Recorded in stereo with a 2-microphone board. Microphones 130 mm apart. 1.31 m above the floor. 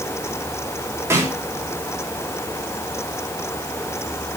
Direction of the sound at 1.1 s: 20° right (ahead or behind).